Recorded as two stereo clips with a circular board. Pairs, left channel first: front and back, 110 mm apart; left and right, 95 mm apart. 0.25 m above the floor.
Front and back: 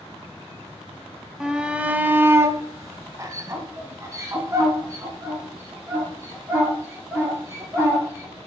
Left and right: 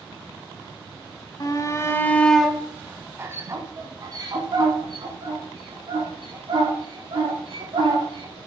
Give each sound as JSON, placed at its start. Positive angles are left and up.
{"t": 1.4, "sound": "a shout", "azimuth_deg": 100, "distance_m": 1.3}